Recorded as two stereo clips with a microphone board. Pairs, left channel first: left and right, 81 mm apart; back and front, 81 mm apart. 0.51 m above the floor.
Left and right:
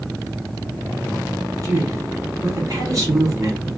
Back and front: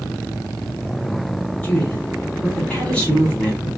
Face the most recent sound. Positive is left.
turn(degrees=-110)